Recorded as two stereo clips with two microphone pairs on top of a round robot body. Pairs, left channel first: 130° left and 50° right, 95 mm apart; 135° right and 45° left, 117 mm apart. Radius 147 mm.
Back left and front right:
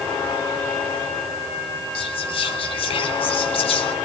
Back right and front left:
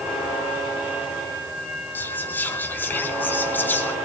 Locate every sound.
1.9 s whispering: 150° left, 4 m